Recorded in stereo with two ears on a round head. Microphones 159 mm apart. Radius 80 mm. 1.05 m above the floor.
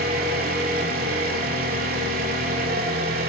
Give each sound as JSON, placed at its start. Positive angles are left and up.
{"t": 0.0, "sound": "an engine running", "side_deg": -50, "distance_m": 2.5}